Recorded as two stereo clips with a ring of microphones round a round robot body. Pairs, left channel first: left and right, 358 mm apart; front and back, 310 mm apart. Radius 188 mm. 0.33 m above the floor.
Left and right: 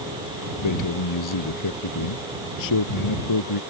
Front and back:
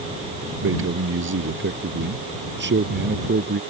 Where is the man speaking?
130° left; by 3.6 s 125° left.